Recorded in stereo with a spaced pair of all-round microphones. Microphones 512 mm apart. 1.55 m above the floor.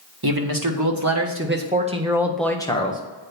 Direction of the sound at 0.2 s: 45° right (ahead or behind).